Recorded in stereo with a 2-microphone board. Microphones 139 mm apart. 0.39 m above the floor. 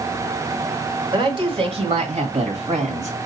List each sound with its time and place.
1.1 s a woman speaking: 35° right (ahead or behind), 1.3 m; by 3.2 s 60° right (ahead or behind), 2 m